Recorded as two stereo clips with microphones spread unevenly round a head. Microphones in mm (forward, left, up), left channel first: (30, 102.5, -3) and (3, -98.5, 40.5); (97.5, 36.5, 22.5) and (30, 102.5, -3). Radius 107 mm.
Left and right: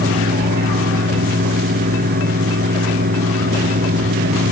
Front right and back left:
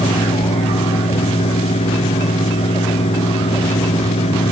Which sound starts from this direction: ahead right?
A fan, at 0.0 s.